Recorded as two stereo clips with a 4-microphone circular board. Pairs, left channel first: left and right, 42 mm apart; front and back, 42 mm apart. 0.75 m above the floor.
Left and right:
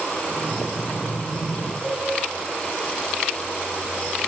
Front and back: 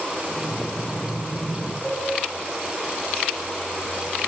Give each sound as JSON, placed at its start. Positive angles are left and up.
{"t": 0.3, "sound": "breathing", "azimuth_deg": 50, "distance_m": 4.5}
{"t": 1.8, "sound": "a cowbell", "azimuth_deg": 75, "distance_m": 6.0}